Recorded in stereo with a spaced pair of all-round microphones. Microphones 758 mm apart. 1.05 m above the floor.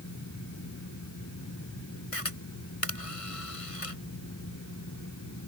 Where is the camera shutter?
45° left (ahead or behind).